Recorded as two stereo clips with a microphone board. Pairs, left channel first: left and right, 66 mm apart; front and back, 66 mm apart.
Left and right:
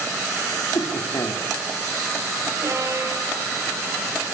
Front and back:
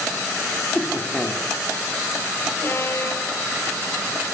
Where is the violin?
55° right, 3 m.